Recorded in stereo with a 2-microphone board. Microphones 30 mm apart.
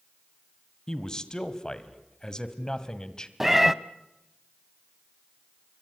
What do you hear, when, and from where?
0.9 s a man speaking: 20° left (ahead or behind), 1.6 m
3.4 s a cat meowing: 10° right (ahead or behind), 0.7 m